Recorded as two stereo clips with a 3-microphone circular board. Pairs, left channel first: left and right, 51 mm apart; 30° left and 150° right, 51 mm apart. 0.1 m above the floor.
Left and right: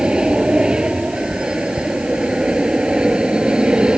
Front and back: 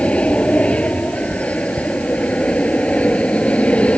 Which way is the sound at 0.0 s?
25° right.